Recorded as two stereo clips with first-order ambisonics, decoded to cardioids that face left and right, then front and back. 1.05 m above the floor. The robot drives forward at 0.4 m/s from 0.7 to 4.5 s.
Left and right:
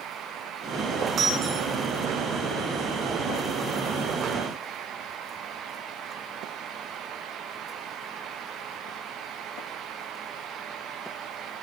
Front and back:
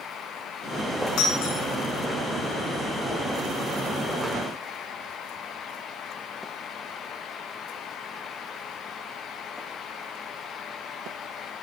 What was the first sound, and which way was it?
Breaking glass, 30° right.